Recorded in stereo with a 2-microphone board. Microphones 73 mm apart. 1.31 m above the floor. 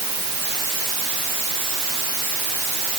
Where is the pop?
I don't hear a pop.